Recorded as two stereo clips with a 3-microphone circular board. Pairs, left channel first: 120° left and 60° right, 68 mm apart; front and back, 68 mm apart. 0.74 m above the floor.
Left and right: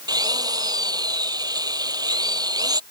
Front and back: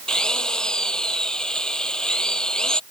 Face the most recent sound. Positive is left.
turn(degrees=-80)